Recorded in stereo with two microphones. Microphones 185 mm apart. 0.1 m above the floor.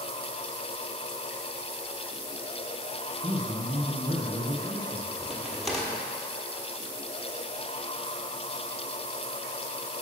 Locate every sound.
3.2 s a man speaking: 35° right (ahead or behind), 2 m
5.2 s a crack: centre (ahead or behind), 1.2 m